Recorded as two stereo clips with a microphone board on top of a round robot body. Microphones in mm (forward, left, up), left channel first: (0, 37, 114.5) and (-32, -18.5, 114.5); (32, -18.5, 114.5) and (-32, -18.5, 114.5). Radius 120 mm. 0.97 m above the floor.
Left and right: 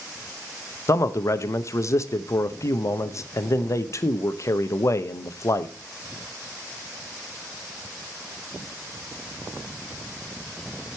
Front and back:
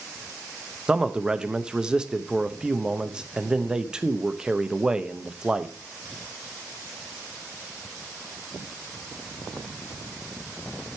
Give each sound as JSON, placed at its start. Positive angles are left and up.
{"t": 0.9, "sound": "a man speaking", "azimuth_deg": 100, "distance_m": 1.0}